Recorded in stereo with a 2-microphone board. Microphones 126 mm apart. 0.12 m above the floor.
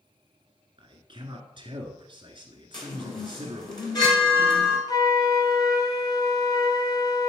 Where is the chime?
35° left (ahead or behind), 1.9 m.